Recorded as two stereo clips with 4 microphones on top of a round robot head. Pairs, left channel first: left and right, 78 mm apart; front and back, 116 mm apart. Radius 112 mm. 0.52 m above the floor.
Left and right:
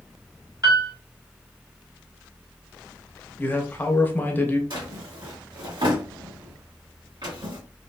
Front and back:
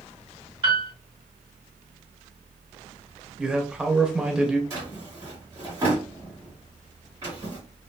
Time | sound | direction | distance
0.6 | a piano | 130° right | 1.9 m
3.4 | a man speaking | 105° left | 0.8 m
4.7 | a drawer | 115° right | 1.6 m